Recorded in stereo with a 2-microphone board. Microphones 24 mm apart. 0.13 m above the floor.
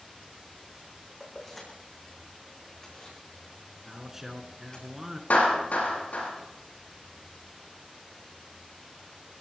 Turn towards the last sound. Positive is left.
turn(degrees=80)